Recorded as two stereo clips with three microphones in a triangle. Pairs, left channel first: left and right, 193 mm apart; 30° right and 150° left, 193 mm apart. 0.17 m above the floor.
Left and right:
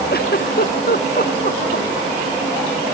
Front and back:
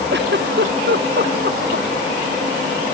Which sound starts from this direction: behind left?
A giggle, at 0.1 s.